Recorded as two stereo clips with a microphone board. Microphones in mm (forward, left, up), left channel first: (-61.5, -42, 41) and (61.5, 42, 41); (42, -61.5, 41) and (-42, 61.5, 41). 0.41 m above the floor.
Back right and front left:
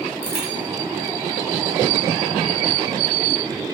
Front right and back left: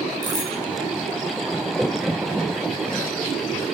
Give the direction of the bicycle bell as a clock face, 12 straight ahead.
11 o'clock.